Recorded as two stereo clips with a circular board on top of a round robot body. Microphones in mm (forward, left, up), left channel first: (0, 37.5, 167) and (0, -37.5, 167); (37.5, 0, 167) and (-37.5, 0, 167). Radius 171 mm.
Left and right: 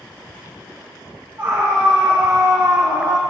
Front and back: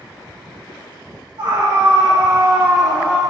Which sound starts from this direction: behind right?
A scream, at 1.4 s.